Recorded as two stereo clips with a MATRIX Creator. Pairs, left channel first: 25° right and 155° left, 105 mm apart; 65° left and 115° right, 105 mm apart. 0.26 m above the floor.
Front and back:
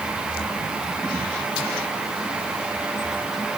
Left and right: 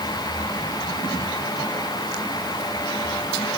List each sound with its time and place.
Only background noise.